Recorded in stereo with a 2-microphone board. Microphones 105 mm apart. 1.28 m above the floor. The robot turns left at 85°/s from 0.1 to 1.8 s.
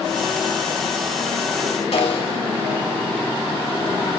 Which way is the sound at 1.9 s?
75° left (ahead or behind).